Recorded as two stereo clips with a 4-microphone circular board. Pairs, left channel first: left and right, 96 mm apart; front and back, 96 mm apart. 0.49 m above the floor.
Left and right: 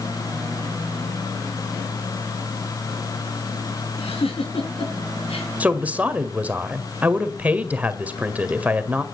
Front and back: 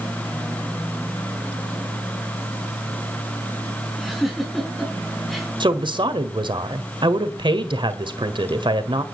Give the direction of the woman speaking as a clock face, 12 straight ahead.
5 o'clock.